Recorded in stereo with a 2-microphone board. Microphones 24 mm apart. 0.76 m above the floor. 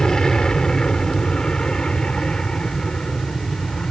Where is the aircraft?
25° left (ahead or behind); by 3.9 s 40° left (ahead or behind).